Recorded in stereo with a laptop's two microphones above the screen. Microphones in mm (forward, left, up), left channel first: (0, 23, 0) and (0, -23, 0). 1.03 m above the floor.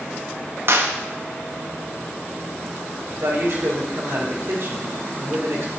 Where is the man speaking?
65° right (ahead or behind), 4 m.